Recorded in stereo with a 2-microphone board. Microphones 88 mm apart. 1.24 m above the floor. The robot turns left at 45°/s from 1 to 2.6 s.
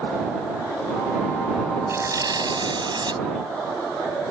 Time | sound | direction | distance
1.9 | tearing paper | 35° right | ?